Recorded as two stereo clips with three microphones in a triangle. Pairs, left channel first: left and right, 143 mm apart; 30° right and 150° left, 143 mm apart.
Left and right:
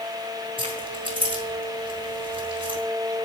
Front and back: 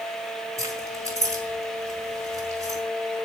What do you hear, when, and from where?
0.6 s keys jangling: 145° right, 4 m